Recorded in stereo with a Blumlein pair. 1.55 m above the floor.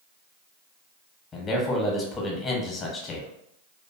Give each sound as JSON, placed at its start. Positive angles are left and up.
{"t": 1.3, "sound": "a man speaking", "azimuth_deg": 20, "distance_m": 0.9}